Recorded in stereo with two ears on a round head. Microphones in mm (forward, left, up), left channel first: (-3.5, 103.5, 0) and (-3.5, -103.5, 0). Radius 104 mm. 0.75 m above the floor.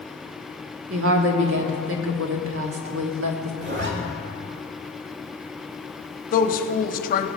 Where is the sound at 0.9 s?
65° right (ahead or behind), 1.4 m.